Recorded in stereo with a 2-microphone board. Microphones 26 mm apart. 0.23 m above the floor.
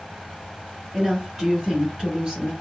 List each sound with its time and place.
0.9 s a woman speaking: 5° right (ahead or behind), 1.7 m; by 2.5 s 20° right (ahead or behind), 1.5 m